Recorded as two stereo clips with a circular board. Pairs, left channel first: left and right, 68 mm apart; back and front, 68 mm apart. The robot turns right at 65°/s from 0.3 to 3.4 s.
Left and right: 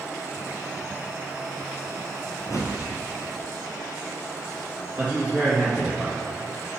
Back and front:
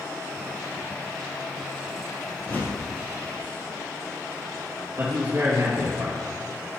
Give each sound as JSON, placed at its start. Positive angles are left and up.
{"t": 2.5, "sound": "a whoosh", "azimuth_deg": 110, "distance_m": 1.1}
{"t": 5.0, "sound": "a man speaking", "azimuth_deg": -30, "distance_m": 2.0}